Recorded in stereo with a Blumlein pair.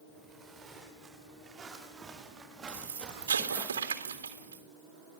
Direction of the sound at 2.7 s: 65° right.